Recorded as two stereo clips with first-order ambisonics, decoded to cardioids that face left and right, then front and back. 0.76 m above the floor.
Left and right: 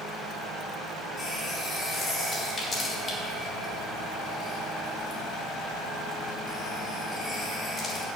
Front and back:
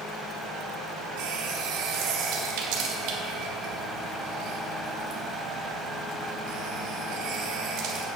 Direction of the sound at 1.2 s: 160° left.